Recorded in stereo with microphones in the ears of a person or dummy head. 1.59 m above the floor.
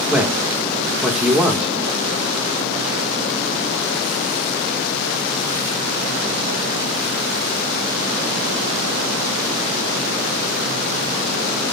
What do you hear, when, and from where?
0.1 s a man speaking: 10° right (ahead or behind), 1.6 m